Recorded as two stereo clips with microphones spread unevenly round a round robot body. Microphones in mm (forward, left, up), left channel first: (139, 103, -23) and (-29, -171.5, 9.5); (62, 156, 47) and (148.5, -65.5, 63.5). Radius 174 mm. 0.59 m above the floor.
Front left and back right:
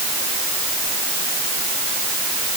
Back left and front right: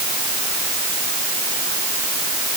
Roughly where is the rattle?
I don't hear a rattle.